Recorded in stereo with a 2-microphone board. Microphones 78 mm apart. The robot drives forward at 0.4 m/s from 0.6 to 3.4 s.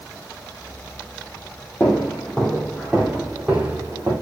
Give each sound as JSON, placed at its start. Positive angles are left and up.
{"t": 1.8, "sound": "footsteps", "side_deg": 20, "distance_m": 2.5}